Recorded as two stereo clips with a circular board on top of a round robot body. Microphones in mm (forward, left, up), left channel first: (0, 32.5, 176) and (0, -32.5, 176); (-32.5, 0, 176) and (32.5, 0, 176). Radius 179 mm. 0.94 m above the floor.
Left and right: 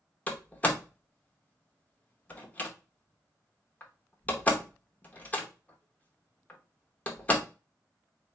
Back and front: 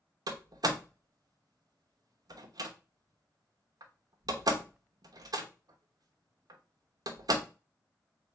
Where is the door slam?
20° left, 0.9 m.